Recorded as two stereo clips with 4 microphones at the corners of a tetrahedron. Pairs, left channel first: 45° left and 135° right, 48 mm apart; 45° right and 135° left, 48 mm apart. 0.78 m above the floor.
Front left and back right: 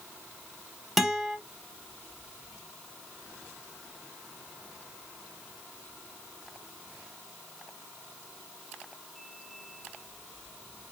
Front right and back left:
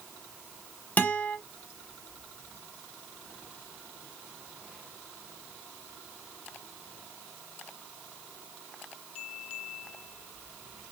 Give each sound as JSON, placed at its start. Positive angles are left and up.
{"t": 1.0, "sound": "a guitar", "azimuth_deg": -50, "distance_m": 0.6}